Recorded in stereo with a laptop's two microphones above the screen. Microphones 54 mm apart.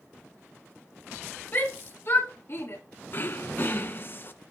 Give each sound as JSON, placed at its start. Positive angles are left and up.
{"t": 1.5, "sound": "a shout", "side_deg": 40, "distance_m": 2.5}
{"t": 3.1, "sound": "throat clearing", "side_deg": 45, "distance_m": 0.6}